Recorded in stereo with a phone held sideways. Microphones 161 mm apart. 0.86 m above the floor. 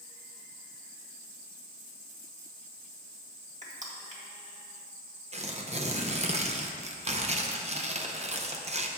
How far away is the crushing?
About 1.5 m.